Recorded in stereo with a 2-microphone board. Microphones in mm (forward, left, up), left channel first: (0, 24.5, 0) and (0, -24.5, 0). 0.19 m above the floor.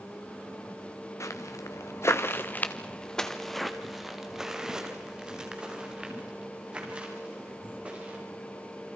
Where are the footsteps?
85° left, 2 m; by 8.2 s 25° right (ahead or behind), 8.5 m.